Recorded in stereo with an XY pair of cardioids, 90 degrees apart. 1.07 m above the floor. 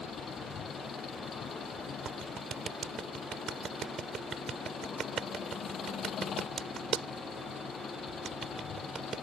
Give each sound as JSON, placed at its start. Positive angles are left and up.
{"t": 0.0, "sound": "an engine running", "azimuth_deg": 65}
{"t": 2.0, "sound": "a clap", "azimuth_deg": -60}